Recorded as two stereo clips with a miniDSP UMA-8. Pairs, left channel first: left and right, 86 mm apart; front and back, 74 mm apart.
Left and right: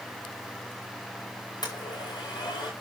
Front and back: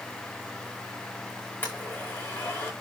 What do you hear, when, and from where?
1.6 s a blender: 60° left, 7.5 m